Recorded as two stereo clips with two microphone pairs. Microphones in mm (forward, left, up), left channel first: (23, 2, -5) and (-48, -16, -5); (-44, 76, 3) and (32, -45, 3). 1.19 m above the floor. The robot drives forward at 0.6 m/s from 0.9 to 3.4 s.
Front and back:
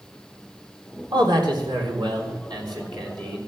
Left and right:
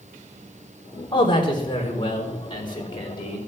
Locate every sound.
1.1 s a man speaking: straight behind, 3.5 m